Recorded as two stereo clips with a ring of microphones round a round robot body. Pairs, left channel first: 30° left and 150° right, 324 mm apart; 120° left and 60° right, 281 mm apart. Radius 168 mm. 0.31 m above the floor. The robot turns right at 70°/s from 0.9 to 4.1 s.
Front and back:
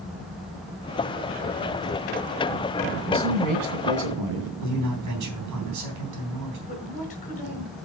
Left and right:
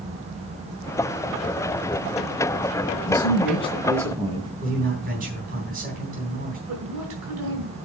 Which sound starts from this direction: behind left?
A man speaking, at 3.1 s.